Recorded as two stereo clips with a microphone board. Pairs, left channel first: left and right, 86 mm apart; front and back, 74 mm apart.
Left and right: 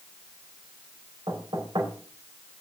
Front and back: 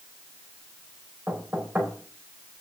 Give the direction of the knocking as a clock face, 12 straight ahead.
4 o'clock.